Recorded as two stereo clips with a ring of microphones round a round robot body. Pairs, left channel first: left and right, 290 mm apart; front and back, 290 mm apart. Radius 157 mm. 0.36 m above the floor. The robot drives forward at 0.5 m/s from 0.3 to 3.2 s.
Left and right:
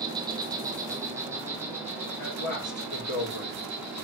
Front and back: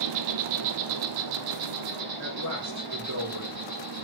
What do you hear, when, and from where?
0.0 s an insect: 170° right, 1.0 m; by 4.0 s 175° right, 2.5 m
2.2 s a man speaking: 135° left, 6 m; by 3.7 s 140° left, 6.5 m